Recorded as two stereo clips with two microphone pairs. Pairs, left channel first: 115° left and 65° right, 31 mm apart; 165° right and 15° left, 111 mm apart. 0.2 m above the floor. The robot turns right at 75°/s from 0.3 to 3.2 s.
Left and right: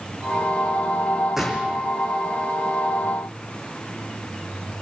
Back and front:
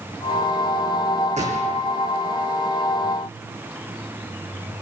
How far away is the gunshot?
About 3.5 m.